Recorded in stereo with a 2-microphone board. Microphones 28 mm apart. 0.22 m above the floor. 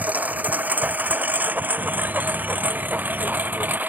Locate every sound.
0.0 s a lawn mower: 60° right (ahead or behind); by 3.9 s 90° right
1.8 s a bird: 75° right (ahead or behind)